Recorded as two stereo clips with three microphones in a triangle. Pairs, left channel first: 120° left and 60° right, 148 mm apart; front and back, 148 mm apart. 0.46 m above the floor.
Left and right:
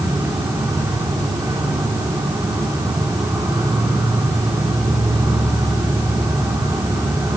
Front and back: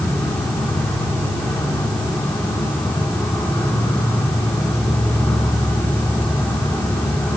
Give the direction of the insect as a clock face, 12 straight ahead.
2 o'clock.